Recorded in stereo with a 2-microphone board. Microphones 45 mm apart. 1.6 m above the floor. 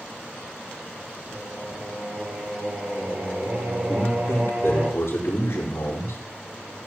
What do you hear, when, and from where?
1.3 s singing: 40° right (ahead or behind), 4 m
3.9 s a man speaking: 85° left, 4.5 m